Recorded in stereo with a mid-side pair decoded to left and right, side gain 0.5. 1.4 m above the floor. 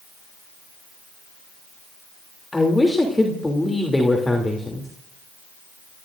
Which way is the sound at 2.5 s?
15° left.